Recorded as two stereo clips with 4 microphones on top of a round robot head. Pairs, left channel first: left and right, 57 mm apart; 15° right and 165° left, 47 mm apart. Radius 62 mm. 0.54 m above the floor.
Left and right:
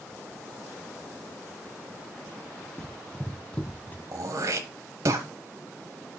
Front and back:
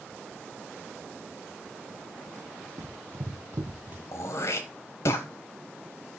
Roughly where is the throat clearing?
Ahead right.